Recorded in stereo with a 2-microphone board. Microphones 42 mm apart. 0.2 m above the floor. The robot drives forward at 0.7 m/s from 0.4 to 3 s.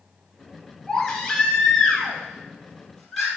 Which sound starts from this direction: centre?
A baby crying, at 0.9 s.